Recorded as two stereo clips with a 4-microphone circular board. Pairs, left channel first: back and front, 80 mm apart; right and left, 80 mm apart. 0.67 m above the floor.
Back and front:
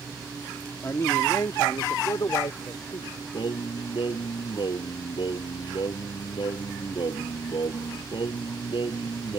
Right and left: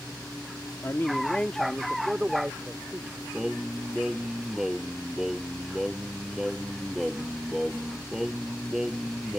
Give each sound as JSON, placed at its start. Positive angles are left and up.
{"t": 0.8, "sound": "a man speaking", "azimuth_deg": -130}
{"t": 3.3, "sound": "singing", "azimuth_deg": 175}